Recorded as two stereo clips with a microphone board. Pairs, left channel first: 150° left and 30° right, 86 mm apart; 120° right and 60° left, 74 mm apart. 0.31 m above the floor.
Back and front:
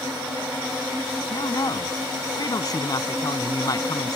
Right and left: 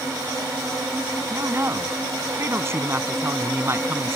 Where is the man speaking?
110° left.